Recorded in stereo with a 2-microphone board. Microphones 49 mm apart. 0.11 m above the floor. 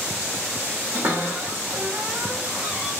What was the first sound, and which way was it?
A cupboard door, 50° right (ahead or behind).